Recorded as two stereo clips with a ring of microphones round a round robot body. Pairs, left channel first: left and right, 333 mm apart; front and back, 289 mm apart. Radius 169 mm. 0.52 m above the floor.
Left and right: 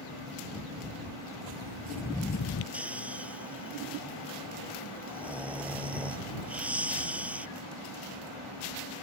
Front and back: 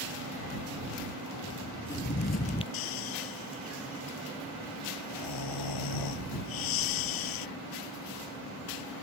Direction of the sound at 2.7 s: 5° right.